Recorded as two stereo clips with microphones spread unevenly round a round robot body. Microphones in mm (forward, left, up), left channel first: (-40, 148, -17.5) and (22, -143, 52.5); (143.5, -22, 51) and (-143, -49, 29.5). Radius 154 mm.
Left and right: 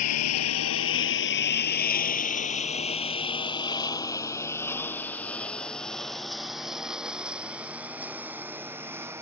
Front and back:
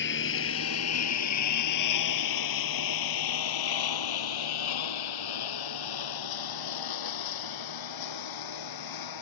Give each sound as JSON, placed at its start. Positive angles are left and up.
{"t": 0.0, "sound": "a lawn mower", "azimuth_deg": 60}